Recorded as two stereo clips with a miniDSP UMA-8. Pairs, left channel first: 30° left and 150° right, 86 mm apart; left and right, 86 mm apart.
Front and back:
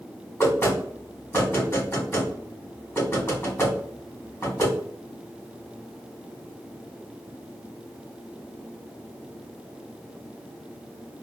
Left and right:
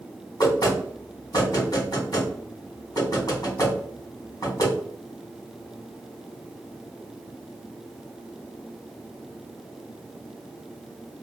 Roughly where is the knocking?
Left.